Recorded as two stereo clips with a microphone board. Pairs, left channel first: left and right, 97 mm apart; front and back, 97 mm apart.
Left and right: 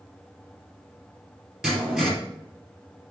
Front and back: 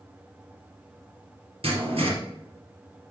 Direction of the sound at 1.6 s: 170° right.